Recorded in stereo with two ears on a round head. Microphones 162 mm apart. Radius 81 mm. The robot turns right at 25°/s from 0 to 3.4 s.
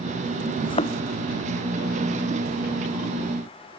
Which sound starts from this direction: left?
A thud, at 0.6 s.